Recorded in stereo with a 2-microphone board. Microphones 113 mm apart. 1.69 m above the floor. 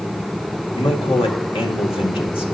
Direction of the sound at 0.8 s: 55° left (ahead or behind).